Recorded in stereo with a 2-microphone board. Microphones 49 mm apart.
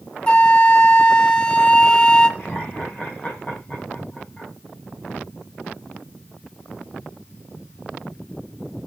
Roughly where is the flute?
Centre.